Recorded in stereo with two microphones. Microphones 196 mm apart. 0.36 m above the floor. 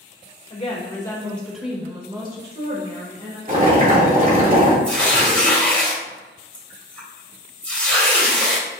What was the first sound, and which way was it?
A woman speaking, 30° left (ahead or behind).